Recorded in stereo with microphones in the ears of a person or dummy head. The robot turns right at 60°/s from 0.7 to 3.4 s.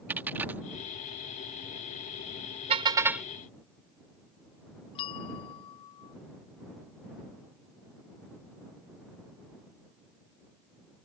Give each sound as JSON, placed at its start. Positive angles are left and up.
{"t": 0.1, "sound": "a dropped coin", "side_deg": -5}
{"t": 2.7, "sound": "a car horn", "azimuth_deg": -40}
{"t": 5.0, "sound": "a bell", "side_deg": 30}